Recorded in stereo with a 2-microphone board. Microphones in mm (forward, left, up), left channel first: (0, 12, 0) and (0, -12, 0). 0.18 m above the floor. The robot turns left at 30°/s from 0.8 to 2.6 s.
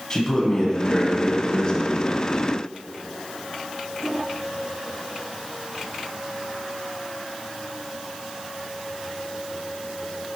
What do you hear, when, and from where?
0.1 s a man speaking: 25° left (ahead or behind), 1.0 m